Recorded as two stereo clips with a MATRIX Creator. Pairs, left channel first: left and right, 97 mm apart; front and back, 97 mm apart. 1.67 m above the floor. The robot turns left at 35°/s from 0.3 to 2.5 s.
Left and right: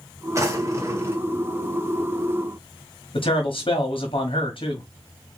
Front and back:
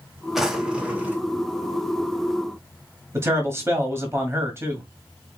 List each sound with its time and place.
0.3 s a drawer: 95° right, 1.2 m; by 1.2 s 125° right, 1.2 m
3.1 s a man speaking: 115° left, 1.4 m